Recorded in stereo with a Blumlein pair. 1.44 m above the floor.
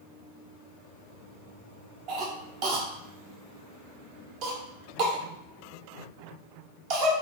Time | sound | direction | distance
2.1 | a cough | 40° right | 0.7 m